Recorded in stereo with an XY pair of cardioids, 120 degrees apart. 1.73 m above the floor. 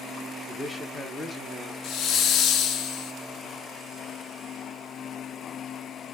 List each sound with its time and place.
0.5 s a man speaking: 5° left, 1.1 m
1.8 s a hiss: 65° left, 0.6 m